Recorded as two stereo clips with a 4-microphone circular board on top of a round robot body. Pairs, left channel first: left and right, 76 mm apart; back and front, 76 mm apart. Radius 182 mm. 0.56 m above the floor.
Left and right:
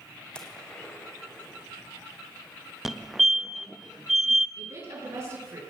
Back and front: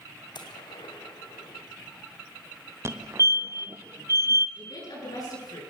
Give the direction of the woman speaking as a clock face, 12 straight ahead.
5 o'clock.